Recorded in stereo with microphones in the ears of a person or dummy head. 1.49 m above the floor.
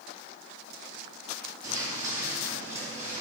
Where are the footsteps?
20° right (ahead or behind), 3 m; by 3.2 s 15° right (ahead or behind), 4.5 m.